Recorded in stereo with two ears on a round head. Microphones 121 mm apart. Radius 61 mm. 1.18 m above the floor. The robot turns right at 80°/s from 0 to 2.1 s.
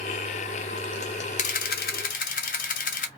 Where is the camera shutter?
55° left, 0.9 m; by 3.1 s 115° left, 0.9 m.